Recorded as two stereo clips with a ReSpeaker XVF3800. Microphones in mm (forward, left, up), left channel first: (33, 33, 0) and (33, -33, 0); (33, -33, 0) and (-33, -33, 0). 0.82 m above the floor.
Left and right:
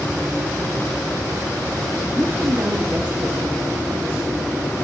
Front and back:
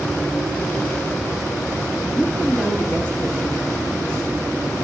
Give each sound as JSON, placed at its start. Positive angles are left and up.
{"t": 2.1, "sound": "a woman speaking", "azimuth_deg": -55, "distance_m": 0.9}